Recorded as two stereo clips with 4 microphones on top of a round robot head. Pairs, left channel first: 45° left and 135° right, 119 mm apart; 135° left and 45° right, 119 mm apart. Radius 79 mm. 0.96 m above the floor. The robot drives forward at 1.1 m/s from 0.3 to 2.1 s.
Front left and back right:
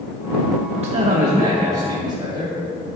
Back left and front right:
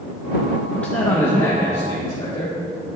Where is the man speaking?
140° right, 0.8 m; by 3.0 s 170° right, 2 m.